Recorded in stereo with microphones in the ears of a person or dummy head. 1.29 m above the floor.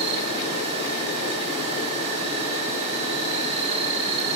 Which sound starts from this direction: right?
An insect, at 0.0 s.